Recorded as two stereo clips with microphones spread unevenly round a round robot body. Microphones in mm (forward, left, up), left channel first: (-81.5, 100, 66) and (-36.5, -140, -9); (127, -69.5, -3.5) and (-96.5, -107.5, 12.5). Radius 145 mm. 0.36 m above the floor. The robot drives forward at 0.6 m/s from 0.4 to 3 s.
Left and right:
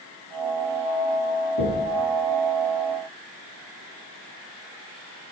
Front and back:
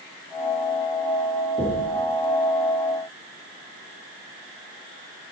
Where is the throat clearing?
I don't hear throat clearing.